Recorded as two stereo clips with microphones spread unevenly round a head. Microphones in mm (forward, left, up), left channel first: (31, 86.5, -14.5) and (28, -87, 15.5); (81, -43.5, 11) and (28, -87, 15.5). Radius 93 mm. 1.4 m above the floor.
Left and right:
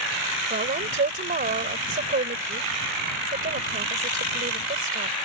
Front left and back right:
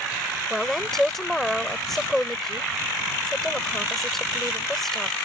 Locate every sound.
0.5 s a woman speaking: 45° right